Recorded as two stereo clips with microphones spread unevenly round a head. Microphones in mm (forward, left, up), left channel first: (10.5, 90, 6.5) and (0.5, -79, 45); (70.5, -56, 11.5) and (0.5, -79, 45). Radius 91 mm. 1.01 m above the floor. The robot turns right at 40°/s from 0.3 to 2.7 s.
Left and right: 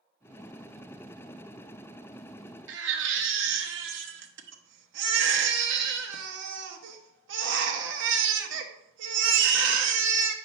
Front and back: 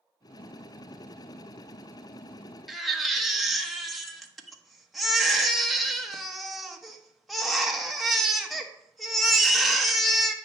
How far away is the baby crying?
About 1.0 m.